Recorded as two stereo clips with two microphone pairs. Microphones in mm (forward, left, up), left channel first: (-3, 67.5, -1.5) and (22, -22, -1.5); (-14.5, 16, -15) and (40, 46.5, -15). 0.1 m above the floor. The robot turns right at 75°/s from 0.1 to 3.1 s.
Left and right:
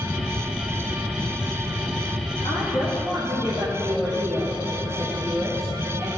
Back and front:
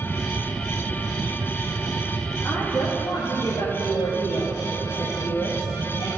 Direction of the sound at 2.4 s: 140° left.